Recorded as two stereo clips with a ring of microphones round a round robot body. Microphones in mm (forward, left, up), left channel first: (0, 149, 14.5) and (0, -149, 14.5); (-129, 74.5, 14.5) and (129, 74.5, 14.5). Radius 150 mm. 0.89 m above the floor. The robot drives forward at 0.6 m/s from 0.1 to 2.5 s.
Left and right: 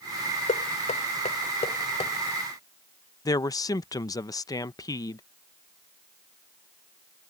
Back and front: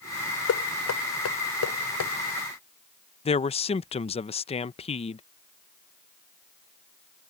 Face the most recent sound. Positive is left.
turn(degrees=150)